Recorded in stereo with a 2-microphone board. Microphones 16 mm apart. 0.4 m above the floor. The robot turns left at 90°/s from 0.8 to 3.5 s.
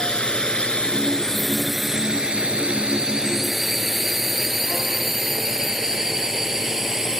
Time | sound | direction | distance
0.0 | a drone | 65° left (ahead or behind) | ?